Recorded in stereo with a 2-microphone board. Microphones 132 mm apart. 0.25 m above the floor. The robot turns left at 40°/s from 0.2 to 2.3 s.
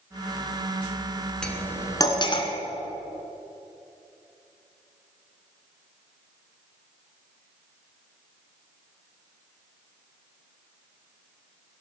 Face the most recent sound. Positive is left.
turn(degrees=40)  # may be behind; listen again after turning